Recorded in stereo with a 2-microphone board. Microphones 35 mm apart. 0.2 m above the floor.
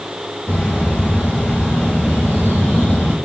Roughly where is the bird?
Left.